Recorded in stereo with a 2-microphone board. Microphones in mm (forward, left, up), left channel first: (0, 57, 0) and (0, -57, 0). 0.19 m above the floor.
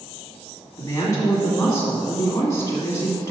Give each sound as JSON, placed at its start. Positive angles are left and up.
{"t": 0.8, "sound": "a woman speaking", "side_deg": 30, "distance_m": 1.7}